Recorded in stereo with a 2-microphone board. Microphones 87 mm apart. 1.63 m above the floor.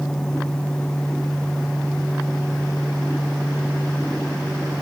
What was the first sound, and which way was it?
Only background noise.